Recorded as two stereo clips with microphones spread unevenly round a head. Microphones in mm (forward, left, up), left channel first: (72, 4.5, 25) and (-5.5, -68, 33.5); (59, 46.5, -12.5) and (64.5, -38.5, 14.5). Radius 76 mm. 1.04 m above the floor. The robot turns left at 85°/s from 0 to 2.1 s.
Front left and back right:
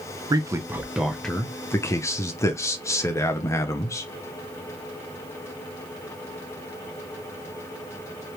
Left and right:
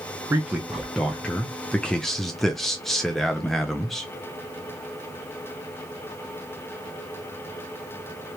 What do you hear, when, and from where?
0.3 s a man speaking: 165° right, 0.7 m; by 4.1 s 40° left, 0.7 m